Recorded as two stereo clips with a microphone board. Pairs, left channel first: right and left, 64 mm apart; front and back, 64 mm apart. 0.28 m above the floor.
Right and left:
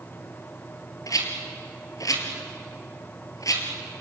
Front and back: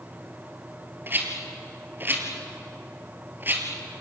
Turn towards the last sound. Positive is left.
turn(degrees=-120)